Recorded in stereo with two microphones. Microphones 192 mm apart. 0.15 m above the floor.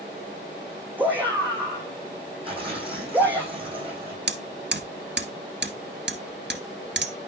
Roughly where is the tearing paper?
Right.